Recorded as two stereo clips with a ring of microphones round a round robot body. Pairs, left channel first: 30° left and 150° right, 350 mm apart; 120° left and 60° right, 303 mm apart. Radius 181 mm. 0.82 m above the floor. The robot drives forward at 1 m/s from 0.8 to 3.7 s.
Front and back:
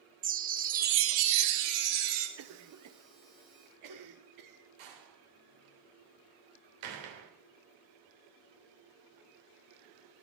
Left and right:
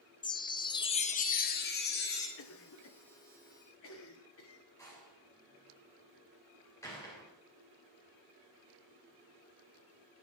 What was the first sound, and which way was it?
A chime, 175° left.